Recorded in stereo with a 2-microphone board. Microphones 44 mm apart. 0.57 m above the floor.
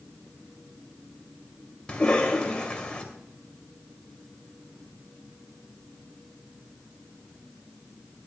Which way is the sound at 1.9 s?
20° left (ahead or behind).